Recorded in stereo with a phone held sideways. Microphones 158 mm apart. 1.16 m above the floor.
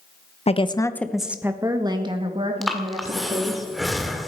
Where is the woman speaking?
40° left (ahead or behind), 1.1 m; by 3.6 s 45° right (ahead or behind), 3.5 m.